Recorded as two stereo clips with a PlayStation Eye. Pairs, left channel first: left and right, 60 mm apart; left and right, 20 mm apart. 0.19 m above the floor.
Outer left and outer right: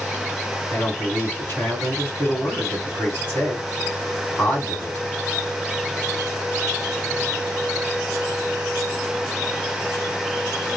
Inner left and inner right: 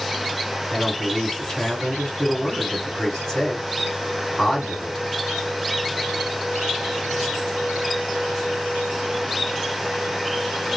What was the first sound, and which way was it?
A man speaking, 30° left (ahead or behind).